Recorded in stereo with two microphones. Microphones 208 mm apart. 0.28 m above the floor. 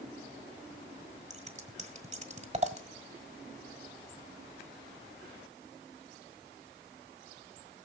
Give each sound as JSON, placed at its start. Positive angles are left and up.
{"t": 1.3, "sound": "scissors", "side_deg": -35, "distance_m": 1.5}